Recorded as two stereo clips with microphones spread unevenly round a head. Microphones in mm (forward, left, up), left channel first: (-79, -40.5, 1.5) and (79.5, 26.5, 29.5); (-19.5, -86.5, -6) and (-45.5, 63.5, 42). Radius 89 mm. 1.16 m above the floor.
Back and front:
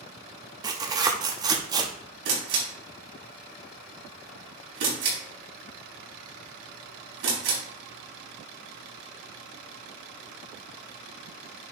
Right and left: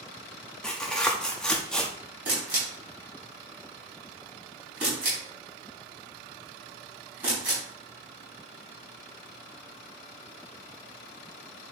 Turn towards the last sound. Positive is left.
turn(degrees=25)